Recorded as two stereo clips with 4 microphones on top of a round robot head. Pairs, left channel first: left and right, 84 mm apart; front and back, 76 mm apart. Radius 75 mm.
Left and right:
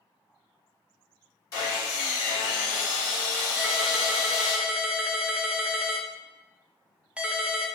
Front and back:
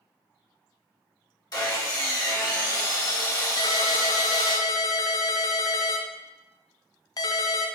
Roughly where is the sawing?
Ahead left.